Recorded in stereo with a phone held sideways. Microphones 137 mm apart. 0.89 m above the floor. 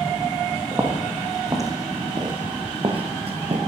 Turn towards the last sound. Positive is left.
turn(degrees=-50)  # may be behind; listen again after turning